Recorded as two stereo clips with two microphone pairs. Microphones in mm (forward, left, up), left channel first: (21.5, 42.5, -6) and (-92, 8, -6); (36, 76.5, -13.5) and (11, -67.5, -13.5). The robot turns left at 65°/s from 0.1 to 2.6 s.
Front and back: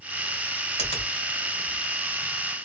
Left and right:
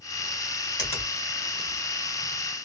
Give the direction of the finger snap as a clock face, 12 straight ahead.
10 o'clock.